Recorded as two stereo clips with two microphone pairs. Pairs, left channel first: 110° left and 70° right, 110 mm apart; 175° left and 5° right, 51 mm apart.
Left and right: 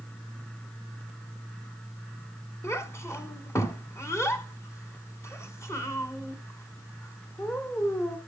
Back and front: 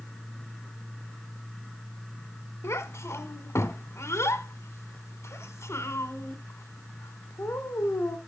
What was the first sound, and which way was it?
A child speaking, 175° left.